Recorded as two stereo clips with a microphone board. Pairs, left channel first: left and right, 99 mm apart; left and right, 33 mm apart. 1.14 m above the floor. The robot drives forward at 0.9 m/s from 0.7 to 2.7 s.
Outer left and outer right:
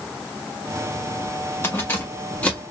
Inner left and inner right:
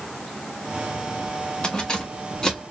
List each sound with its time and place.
1.6 s keys jangling: 25° left (ahead or behind), 0.9 m; by 2.6 s 15° left (ahead or behind), 1.8 m